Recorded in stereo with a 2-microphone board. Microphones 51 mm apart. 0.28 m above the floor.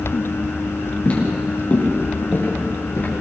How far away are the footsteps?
About 6.5 m.